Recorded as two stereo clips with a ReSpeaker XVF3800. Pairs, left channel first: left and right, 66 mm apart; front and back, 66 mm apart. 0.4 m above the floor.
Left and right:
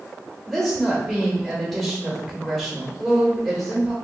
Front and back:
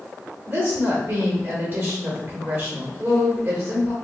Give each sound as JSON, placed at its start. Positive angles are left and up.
{"t": 0.5, "sound": "a woman speaking", "azimuth_deg": 170, "distance_m": 1.1}